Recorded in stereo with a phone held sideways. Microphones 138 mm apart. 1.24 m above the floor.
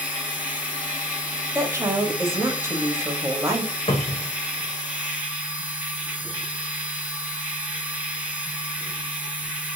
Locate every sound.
0.0 s a machine running: 10° right (ahead or behind), 0.9 m
1.6 s a woman speaking: 20° right (ahead or behind), 0.7 m
3.9 s a cupboard door: 45° left (ahead or behind), 0.6 m